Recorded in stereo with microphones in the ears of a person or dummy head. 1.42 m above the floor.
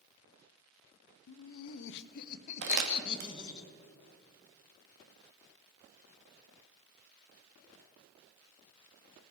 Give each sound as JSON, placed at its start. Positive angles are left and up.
{"t": 1.3, "sound": "laughter", "side_deg": 80, "distance_m": 0.7}
{"t": 2.6, "sound": "crumpling", "side_deg": -55, "distance_m": 1.3}